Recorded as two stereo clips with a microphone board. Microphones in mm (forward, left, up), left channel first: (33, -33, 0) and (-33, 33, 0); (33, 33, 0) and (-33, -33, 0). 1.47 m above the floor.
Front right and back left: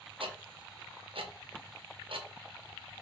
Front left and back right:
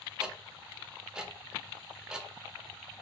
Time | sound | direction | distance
0.2 | ticking | 145° left | 0.5 m